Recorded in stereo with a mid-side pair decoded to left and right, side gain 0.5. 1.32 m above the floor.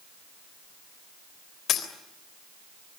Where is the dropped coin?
60° left, 3.5 m.